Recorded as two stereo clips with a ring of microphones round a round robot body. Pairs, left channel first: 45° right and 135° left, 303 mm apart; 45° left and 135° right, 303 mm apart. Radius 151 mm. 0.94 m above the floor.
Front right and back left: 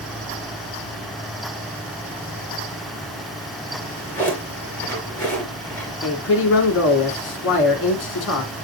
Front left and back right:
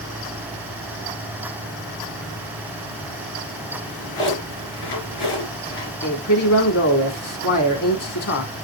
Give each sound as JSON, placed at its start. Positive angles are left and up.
{"t": 3.7, "sound": "a drawer", "azimuth_deg": 40, "distance_m": 4.5}
{"t": 6.0, "sound": "a man speaking", "azimuth_deg": 5, "distance_m": 3.0}